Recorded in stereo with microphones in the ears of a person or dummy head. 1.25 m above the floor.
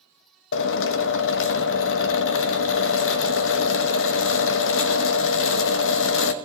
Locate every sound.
0.5 s a drill: 75° left (ahead or behind), 0.9 m